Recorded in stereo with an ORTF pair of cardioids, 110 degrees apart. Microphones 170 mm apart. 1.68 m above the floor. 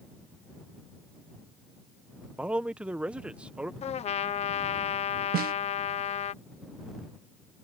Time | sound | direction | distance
2.4 | a man speaking | 5° right | ?
3.8 | a trumpet | 40° left | ?
5.3 | a snare drum | 60° right | ?